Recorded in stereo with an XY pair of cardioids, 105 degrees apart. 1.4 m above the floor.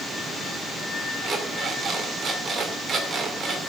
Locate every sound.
1.2 s an alarm clock: 45° right, 2.5 m